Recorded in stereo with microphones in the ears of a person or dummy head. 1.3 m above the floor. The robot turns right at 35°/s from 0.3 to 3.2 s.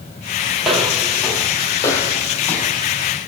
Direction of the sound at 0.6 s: 5° right (ahead or behind).